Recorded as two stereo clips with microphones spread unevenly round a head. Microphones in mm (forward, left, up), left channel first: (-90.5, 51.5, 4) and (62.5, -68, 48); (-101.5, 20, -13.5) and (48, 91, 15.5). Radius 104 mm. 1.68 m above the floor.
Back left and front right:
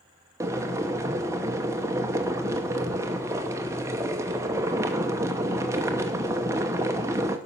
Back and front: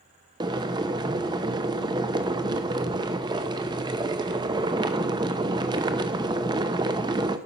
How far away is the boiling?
About 0.7 m.